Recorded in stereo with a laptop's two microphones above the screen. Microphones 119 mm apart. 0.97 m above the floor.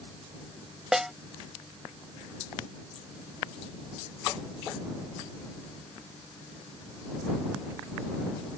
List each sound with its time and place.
0.9 s a snare drum: 5° right (ahead or behind)